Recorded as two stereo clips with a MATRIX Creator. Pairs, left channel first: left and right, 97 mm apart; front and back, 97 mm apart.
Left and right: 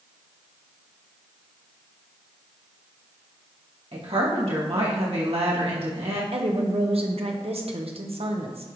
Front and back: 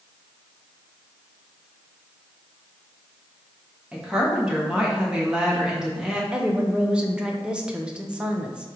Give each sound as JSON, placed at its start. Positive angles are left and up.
{"t": 3.9, "sound": "a woman speaking", "azimuth_deg": -100, "distance_m": 2.5}
{"t": 6.3, "sound": "a woman speaking", "azimuth_deg": -100, "distance_m": 1.2}